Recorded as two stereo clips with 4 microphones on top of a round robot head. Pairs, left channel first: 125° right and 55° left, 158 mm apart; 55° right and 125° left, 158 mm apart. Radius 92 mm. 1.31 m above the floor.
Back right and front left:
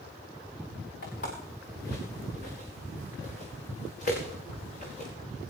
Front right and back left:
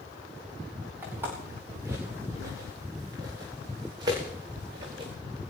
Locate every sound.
1.0 s footsteps: 160° right, 8.5 m; by 5.1 s 175° right, 10.5 m